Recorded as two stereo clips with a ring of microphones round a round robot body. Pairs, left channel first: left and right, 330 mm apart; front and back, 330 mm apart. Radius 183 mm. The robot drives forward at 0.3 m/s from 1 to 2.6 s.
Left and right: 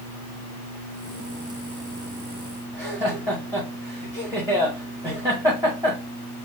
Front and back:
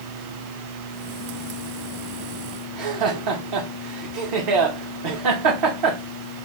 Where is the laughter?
170° right, 1.1 m.